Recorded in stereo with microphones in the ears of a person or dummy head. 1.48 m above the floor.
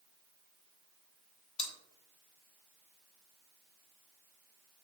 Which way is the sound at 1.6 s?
35° left (ahead or behind).